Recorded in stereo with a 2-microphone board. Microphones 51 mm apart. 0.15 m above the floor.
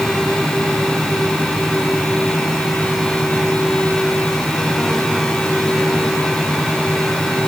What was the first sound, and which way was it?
Only background noise.